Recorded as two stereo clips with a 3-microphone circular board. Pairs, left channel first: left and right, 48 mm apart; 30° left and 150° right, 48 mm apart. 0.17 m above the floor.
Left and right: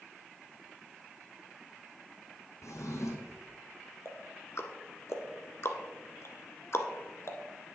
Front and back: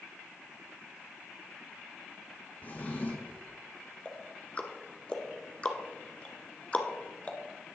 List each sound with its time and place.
2.6 s a drawer: 80° left, 1.8 m
4.0 s ticking: 90° left, 0.9 m